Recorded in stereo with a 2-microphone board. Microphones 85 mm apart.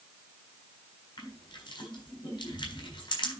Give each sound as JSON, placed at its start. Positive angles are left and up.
{"t": 1.2, "sound": "crushing", "side_deg": 65, "distance_m": 4.0}